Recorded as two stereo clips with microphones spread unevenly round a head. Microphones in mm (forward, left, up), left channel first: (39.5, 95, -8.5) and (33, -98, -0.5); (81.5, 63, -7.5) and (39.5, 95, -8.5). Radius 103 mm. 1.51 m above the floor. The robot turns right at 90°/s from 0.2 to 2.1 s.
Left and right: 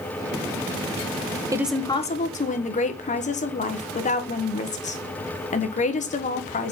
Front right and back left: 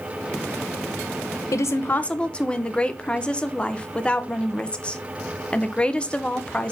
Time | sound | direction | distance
1.5 | a woman speaking | 20° right | 1.1 m